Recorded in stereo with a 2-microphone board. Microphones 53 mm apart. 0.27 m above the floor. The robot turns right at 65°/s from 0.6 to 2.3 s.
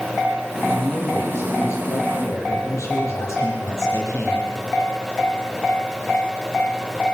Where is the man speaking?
5° right, 7 m; by 4.5 s 100° left, 7 m.